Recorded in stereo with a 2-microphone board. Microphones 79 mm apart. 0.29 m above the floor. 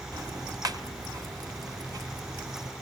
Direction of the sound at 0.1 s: 50° right (ahead or behind).